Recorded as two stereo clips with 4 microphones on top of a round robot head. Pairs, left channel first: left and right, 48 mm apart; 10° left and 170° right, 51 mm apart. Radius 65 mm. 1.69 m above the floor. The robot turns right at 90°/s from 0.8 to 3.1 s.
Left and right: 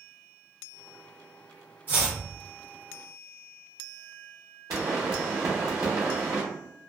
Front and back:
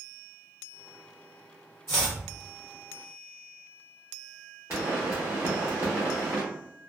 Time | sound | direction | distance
1.9 | chopping | 40° right | 0.8 m
4.7 | a pop | 115° right | 0.7 m